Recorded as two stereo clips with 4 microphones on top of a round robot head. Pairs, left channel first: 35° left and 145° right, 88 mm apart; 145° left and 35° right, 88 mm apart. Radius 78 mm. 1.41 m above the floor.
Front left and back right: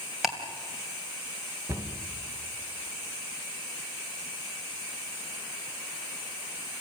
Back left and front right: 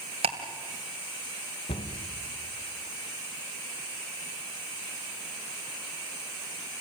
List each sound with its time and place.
0.2 s ticking: 60° right, 2.5 m
1.7 s a cupboard door: 155° left, 2 m